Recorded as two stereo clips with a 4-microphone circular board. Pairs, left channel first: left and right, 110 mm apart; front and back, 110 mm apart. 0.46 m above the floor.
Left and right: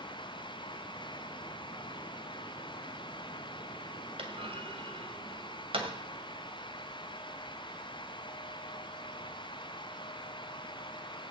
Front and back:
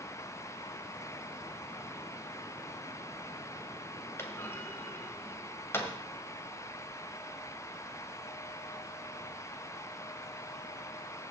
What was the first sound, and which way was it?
A clunk, 65° right.